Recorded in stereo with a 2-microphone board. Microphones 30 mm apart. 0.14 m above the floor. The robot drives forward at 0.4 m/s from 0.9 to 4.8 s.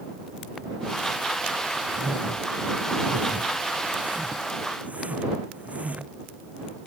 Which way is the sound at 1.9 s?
50° right (ahead or behind).